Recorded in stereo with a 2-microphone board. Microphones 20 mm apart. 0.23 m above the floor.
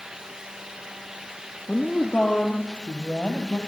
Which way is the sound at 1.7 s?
70° left (ahead or behind).